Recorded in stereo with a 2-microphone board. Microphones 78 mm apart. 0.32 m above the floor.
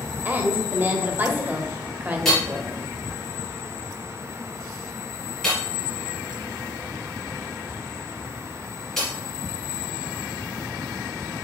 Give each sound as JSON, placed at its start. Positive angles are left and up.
{"t": 0.2, "sound": "a woman speaking", "side_deg": -25, "distance_m": 1.2}
{"t": 2.2, "sound": "hammering", "side_deg": 5, "distance_m": 3.0}